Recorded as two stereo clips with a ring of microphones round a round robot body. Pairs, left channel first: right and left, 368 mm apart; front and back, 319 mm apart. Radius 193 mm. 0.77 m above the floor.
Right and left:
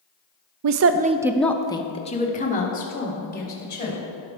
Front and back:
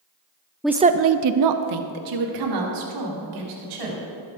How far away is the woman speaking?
About 0.5 m.